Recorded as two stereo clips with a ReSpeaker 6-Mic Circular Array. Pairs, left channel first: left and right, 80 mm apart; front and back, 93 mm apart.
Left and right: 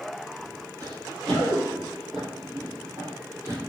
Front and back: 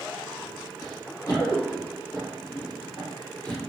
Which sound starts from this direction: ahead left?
Running footsteps, at 0.8 s.